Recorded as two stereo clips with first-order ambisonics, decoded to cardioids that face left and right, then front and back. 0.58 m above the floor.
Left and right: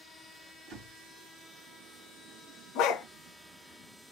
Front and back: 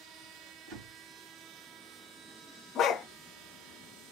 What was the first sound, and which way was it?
A door slam, 150° right.